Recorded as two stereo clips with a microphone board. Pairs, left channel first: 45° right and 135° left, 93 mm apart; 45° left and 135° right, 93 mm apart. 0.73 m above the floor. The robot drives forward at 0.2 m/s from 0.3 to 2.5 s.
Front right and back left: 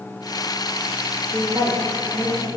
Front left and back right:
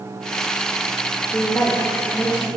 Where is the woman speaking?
95° left, 0.7 m; by 2.5 s 120° left, 0.8 m.